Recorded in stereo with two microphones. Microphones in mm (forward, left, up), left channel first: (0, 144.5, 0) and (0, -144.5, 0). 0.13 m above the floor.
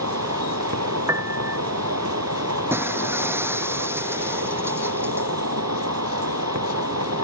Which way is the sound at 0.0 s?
65° right (ahead or behind).